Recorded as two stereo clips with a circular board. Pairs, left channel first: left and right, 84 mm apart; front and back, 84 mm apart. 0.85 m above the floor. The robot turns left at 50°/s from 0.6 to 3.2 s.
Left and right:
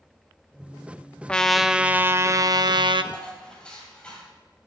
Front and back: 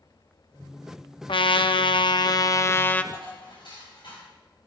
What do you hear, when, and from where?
1.3 s a trumpet: 15° left, 0.5 m; by 3.0 s 75° right, 0.5 m
3.1 s dishes clattering: 15° left, 4 m